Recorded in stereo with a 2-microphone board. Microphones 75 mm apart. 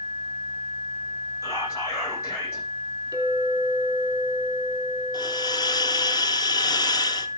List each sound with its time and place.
1.4 s whispering: 40° left (ahead or behind), 9.5 m
3.1 s a clink: 55° right (ahead or behind), 3.5 m
5.1 s a hiss: 60° left (ahead or behind), 1.0 m